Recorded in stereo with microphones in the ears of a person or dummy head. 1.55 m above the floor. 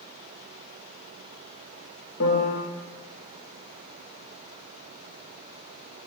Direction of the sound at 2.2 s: 70° left (ahead or behind).